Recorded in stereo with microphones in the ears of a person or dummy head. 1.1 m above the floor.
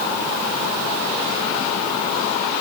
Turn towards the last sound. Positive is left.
No sound to turn to.